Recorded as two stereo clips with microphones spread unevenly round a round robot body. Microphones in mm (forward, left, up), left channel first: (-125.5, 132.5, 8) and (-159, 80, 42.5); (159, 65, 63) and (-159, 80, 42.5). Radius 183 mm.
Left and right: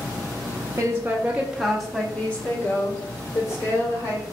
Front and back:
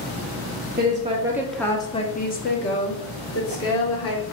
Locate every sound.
0.8 s a woman speaking: 170° left, 0.8 m; by 4.2 s 40° left, 1.8 m